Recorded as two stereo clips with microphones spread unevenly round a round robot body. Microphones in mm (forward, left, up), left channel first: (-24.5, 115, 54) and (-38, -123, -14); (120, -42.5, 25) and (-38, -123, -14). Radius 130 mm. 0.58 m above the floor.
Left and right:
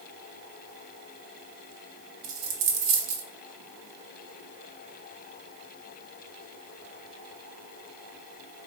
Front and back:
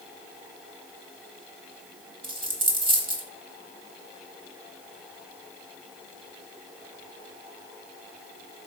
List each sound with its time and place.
2.2 s a dropped coin: 90° right, 1.2 m